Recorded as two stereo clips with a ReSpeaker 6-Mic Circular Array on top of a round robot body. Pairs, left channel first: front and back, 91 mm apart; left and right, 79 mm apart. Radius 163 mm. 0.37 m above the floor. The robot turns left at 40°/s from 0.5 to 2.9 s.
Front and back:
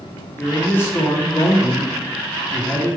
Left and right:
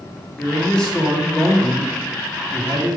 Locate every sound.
0.4 s a man speaking: 35° left, 1.1 m; by 3.0 s 60° right, 1.1 m